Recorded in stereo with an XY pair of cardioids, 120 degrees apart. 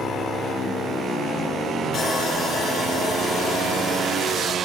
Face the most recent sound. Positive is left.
turn(degrees=45)